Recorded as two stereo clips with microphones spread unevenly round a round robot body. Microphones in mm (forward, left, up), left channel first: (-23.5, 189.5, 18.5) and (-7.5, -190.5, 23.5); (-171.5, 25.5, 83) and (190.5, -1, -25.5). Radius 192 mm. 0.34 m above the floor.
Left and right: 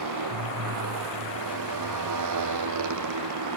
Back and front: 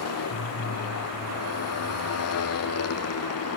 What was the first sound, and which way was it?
A motorcycle, 130° right.